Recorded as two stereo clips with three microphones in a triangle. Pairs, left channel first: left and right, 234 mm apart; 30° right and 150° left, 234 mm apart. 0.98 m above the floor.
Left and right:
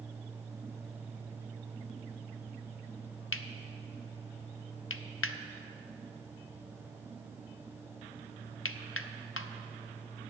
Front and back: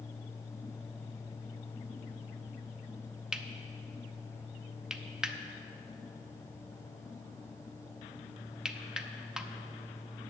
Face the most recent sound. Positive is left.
turn(degrees=65)